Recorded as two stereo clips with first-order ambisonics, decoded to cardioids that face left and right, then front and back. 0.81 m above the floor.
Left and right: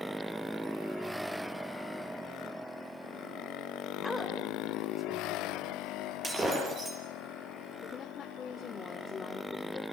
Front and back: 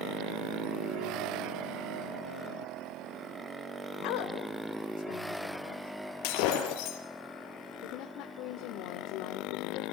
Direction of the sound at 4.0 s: 5° left.